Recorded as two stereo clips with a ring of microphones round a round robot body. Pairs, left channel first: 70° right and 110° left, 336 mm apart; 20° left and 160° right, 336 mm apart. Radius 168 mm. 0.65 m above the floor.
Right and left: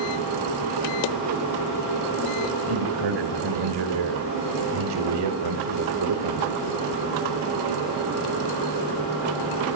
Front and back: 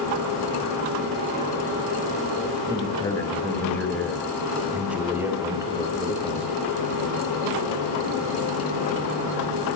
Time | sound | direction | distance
2.7 | a man speaking | 100° left | 5.5 m